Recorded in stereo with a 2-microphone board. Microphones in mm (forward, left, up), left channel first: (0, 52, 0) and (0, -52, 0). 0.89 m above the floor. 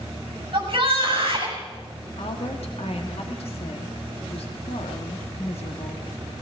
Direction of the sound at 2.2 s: 70° left (ahead or behind).